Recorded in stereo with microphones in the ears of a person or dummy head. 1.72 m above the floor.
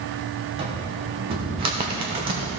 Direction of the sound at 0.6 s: 30° right (ahead or behind).